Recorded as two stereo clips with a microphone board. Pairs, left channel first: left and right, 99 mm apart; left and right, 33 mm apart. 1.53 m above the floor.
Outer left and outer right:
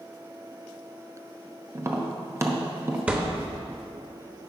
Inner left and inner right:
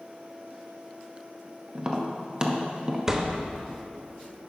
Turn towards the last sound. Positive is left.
turn(degrees=-15)  # may be behind; listen again after turning